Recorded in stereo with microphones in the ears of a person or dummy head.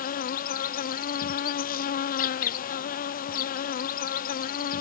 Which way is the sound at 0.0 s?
45° left (ahead or behind).